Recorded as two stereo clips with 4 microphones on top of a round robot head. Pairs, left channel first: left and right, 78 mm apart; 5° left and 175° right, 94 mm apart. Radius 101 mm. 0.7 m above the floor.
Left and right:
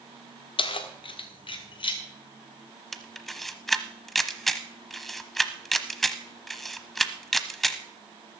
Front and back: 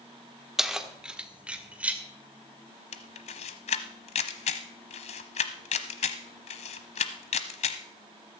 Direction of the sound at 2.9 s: 5° left.